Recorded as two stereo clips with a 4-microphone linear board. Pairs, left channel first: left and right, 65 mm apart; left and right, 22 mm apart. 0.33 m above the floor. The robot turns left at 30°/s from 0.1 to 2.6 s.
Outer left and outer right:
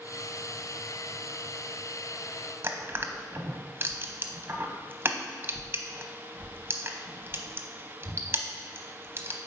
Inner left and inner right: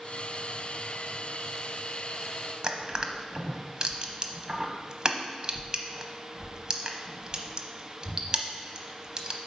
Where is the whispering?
I don't hear whispering.